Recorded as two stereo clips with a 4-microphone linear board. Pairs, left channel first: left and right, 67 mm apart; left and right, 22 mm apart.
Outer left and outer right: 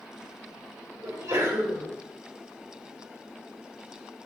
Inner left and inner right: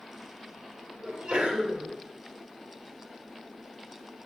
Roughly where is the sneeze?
Right.